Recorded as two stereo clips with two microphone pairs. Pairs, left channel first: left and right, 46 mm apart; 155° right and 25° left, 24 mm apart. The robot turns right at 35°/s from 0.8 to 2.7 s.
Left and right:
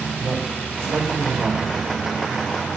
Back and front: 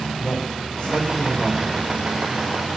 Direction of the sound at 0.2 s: 105° right.